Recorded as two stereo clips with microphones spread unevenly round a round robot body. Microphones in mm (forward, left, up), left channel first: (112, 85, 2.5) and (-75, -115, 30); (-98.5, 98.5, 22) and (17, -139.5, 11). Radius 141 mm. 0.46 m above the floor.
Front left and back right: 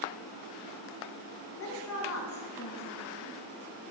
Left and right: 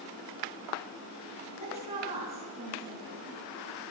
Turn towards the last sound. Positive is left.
turn(degrees=5)